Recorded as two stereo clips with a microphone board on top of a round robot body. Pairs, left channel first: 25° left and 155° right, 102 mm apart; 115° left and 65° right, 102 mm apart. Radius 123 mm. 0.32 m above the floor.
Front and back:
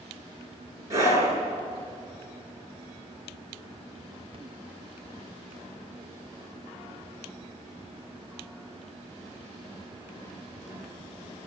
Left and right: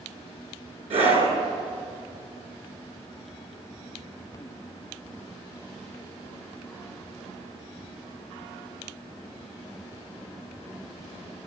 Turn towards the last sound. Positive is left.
turn(degrees=-95)